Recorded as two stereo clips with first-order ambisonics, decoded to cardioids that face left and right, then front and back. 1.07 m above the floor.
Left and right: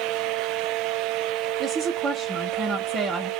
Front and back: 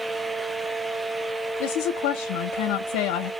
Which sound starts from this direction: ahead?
A woman speaking, at 1.6 s.